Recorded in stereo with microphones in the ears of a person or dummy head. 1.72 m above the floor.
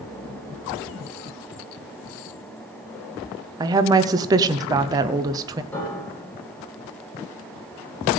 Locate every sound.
3.6 s a woman speaking: 20° right (ahead or behind), 0.9 m
5.7 s a piano: 5° left (ahead or behind), 8.5 m